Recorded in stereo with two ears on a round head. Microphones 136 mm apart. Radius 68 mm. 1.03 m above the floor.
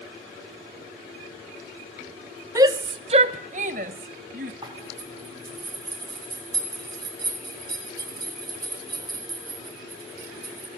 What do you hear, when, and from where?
2.5 s a shout: 20° right (ahead or behind), 0.9 m; by 4.5 s 55° right (ahead or behind), 1.5 m
4.6 s a zipper: 25° right (ahead or behind), 4 m